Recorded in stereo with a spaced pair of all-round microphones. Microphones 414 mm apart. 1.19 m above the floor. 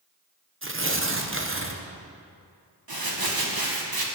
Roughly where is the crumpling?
Right.